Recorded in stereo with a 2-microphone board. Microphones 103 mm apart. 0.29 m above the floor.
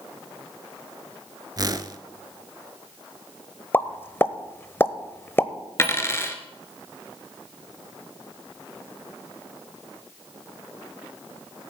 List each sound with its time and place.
1.6 s a whoosh: 40° right (ahead or behind), 0.7 m
3.7 s a pop: 20° left (ahead or behind), 0.7 m
5.8 s a dropped coin: 25° left (ahead or behind), 1.3 m